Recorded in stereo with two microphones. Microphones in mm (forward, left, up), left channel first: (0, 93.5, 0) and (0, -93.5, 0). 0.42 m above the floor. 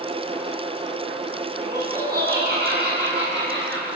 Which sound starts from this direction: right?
Laughter, at 1.6 s.